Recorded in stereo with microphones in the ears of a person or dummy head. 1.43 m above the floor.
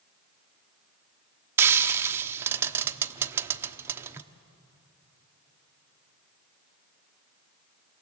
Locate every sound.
1.6 s frying: 10° right (ahead or behind), 0.9 m